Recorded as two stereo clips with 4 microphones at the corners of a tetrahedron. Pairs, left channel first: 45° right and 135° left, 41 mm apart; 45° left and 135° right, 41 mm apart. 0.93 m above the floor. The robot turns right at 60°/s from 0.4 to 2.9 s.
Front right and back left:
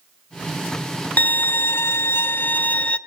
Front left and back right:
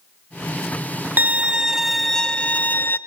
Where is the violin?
90° right, 0.6 m; by 3.0 s 15° left, 0.6 m.